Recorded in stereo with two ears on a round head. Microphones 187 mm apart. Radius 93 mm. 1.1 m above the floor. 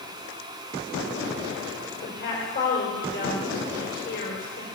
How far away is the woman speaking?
About 4.5 m.